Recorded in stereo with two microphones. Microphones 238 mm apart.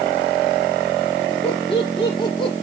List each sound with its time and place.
1.4 s laughter: 25° left (ahead or behind), 9.5 m; by 2.5 s 20° left (ahead or behind), 9.5 m